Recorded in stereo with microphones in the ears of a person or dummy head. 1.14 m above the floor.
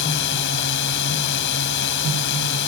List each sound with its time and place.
0.0 s a drone: 65° left (ahead or behind)